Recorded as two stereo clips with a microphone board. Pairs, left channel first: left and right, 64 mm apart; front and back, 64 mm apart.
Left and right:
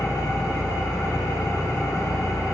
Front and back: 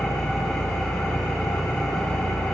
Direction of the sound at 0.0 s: 80° left.